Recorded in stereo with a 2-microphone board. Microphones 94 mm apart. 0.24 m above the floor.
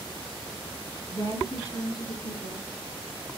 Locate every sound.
1.1 s a woman speaking: 40° left (ahead or behind), 2.5 m